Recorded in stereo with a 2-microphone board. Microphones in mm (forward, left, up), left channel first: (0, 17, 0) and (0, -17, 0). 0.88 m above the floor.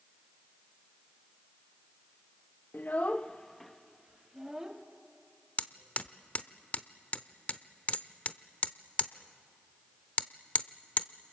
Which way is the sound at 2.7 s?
60° left (ahead or behind).